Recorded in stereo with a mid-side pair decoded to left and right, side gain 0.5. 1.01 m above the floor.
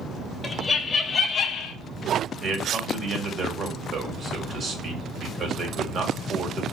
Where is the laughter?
25° left, 1.1 m; by 1.8 s 75° left, 0.6 m.